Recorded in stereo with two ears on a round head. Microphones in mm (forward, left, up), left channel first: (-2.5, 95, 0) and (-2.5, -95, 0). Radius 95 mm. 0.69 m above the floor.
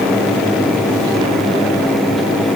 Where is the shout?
No shout in this recording.